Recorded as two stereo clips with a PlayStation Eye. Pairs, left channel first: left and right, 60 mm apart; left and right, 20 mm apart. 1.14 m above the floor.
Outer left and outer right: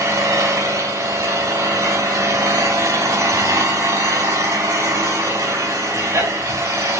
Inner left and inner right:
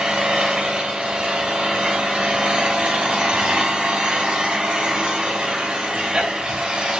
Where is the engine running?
85° right, 5 m.